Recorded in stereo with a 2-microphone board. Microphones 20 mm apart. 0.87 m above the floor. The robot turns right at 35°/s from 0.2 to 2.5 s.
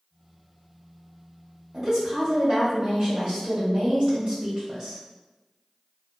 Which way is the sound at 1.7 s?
25° right (ahead or behind).